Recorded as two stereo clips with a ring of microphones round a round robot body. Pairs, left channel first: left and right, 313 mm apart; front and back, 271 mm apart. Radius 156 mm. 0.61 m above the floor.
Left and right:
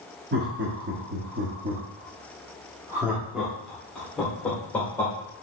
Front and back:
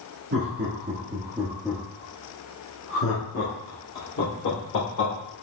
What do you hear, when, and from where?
0.3 s laughter: 140° right, 1.2 m; by 5.1 s 5° left, 2 m